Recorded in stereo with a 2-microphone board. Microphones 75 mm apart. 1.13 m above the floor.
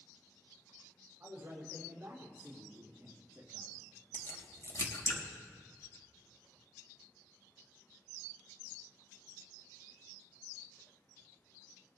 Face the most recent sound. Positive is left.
turn(degrees=40)  # may be behind; listen again after turning